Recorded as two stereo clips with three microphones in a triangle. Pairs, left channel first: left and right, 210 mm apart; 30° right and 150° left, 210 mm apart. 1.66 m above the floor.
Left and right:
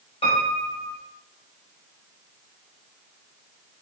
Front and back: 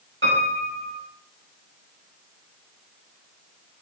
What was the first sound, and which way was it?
A piano, 150° left.